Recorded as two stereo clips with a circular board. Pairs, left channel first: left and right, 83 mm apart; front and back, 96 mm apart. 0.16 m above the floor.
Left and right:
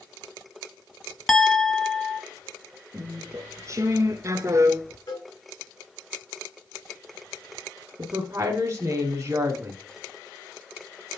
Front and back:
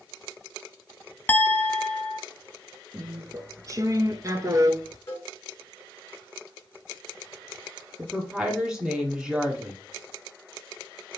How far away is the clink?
About 0.6 m.